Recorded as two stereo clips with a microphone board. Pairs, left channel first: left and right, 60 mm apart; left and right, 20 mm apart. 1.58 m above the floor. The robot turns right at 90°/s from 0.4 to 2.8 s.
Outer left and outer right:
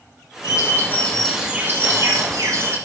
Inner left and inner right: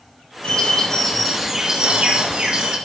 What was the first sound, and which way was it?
A bird, 105° left.